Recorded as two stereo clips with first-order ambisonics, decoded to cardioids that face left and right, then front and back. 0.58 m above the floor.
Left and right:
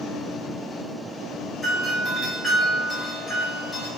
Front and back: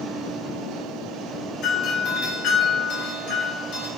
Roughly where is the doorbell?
Ahead.